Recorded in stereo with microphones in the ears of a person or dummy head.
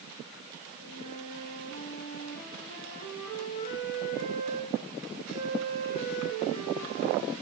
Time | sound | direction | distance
0.7 | a flute | 50° left (ahead or behind) | 6 m